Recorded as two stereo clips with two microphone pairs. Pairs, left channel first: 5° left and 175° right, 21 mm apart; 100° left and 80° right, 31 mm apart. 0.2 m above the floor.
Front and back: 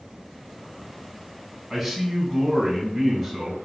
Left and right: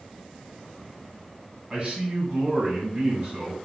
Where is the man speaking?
85° right, 1.3 m.